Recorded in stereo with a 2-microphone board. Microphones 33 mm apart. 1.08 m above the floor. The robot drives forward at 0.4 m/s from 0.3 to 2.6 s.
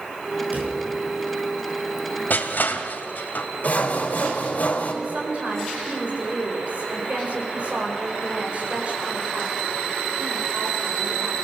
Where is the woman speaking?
40° right (ahead or behind), 4.5 m.